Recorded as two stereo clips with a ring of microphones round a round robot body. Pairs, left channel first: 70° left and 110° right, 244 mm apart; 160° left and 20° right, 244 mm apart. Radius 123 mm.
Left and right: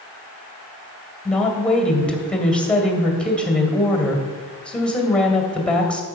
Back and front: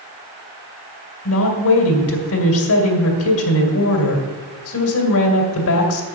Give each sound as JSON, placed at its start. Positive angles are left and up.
{"t": 1.2, "sound": "a woman speaking", "azimuth_deg": 155, "distance_m": 2.0}